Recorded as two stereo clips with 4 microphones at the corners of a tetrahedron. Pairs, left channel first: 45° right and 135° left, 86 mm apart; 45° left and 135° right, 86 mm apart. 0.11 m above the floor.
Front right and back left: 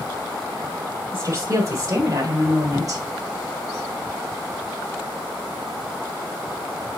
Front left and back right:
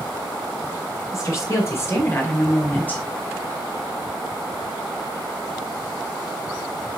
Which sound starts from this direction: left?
A woman speaking, at 1.1 s.